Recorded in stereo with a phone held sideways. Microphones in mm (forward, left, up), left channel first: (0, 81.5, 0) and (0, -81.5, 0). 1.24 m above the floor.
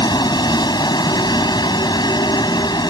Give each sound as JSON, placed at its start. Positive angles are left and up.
{"t": 0.0, "sound": "a vehicle", "side_deg": 25}